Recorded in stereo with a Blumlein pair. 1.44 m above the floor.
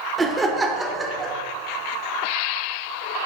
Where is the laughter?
15° right, 0.7 m.